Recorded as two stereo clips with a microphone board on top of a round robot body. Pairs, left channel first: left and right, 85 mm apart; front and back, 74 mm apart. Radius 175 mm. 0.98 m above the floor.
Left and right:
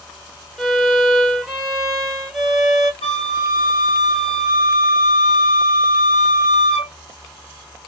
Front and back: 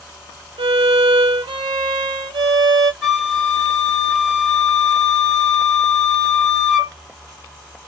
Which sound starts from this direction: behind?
A violin, at 0.6 s.